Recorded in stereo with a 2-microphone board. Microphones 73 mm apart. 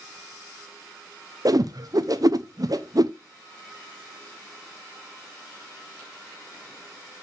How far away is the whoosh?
About 0.8 m.